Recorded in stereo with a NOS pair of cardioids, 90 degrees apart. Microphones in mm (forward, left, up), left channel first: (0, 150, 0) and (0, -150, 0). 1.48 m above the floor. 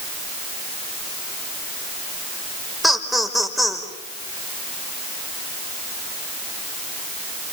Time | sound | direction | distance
2.8 | laughter | straight ahead | 5.5 m